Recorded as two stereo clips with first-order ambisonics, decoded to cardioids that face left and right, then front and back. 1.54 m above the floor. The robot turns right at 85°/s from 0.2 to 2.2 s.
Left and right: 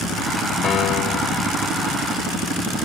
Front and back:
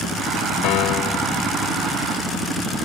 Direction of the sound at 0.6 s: 25° left.